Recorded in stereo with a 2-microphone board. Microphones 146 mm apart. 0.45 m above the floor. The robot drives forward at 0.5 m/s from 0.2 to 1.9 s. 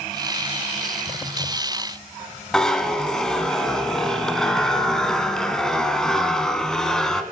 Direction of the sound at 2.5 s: 5° left (ahead or behind).